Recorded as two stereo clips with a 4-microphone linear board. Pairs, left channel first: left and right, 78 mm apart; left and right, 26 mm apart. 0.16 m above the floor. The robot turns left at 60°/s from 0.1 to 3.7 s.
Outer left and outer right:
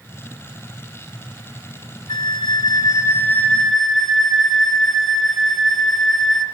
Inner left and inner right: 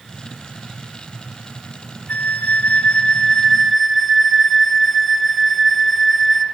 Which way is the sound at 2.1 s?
100° left.